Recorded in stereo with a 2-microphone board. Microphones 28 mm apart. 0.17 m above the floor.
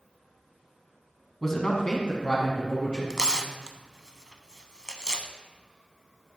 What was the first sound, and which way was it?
A man speaking, 10° left (ahead or behind).